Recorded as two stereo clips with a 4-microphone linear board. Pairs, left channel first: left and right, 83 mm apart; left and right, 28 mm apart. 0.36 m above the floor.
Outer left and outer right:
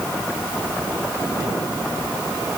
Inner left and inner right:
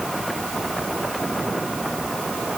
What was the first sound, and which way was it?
Only background noise.